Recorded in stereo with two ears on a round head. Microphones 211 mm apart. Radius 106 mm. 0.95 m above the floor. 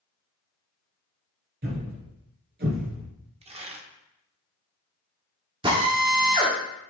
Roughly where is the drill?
Right.